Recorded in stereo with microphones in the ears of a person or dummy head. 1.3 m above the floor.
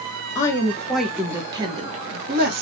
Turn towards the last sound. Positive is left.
turn(degrees=-60)  # may be behind; listen again after turning